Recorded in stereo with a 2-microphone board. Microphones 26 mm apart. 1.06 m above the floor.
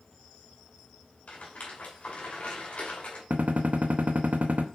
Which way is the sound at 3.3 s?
65° right (ahead or behind).